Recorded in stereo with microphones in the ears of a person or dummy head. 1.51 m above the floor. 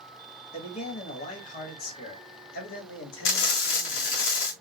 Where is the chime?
I don't hear a chime.